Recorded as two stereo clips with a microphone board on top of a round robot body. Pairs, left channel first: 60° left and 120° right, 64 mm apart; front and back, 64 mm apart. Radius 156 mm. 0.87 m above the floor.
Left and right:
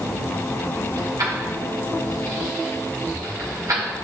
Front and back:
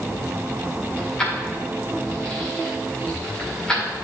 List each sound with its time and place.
1.0 s keys jangling: 80° right, 2 m